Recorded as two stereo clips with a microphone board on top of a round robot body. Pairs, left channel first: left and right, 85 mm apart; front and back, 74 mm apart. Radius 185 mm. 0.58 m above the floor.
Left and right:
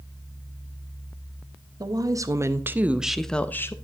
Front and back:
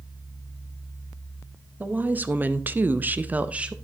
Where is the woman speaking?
115° right, 1.2 m; by 3.7 s 115° left, 0.8 m.